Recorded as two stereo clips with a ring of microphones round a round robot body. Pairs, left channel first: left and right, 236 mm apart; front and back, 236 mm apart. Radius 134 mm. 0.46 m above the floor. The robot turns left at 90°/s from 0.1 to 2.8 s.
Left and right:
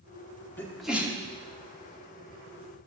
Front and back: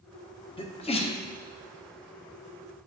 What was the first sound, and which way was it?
A sneeze, 25° left.